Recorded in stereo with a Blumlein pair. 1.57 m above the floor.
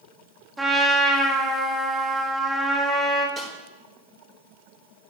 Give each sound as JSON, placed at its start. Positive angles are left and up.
{"t": 0.6, "sound": "a trumpet", "azimuth_deg": -5, "distance_m": 1.6}
{"t": 3.4, "sound": "a snare drum", "azimuth_deg": -20, "distance_m": 5.5}